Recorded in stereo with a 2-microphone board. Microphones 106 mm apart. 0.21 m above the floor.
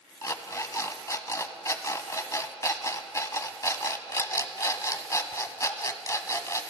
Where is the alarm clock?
30° left (ahead or behind), 0.7 m.